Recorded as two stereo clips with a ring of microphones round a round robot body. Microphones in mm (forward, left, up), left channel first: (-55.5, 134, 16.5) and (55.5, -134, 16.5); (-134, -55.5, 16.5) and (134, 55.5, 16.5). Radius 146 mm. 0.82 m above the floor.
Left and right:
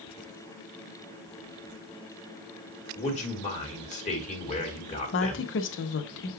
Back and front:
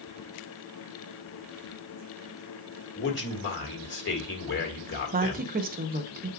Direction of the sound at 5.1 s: 75° left.